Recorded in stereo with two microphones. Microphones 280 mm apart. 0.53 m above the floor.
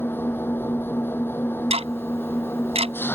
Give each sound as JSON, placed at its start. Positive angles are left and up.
{"t": 0.0, "sound": "an engine running", "side_deg": 10}
{"t": 1.7, "sound": "ticking", "side_deg": -20}